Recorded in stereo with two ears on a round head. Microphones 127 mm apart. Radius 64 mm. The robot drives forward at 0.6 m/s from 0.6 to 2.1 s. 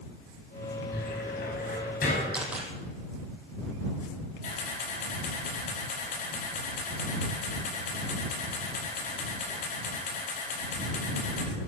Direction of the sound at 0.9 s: 75° left (ahead or behind).